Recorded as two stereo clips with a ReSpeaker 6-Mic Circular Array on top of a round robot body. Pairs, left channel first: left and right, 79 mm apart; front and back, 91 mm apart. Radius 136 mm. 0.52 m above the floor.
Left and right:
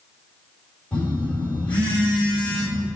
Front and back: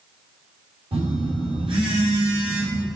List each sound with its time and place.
0.9 s a phone buzzing: 165° left, 4.5 m